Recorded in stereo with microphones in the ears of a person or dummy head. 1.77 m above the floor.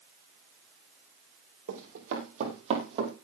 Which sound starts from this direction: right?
Running footsteps, at 1.7 s.